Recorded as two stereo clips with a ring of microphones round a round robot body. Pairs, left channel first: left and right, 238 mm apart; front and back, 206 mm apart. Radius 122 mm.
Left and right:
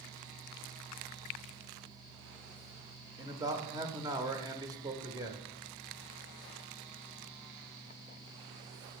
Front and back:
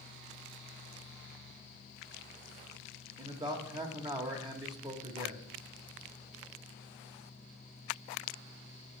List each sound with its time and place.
3.2 s a man speaking: 145° right, 1.0 m